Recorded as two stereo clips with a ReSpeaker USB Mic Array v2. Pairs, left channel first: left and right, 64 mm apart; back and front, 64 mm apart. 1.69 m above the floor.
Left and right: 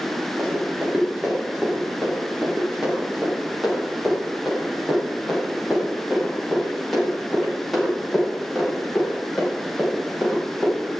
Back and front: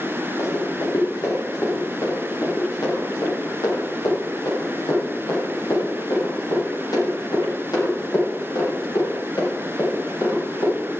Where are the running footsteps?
165° right, 6 m; by 10.8 s 170° left, 16 m.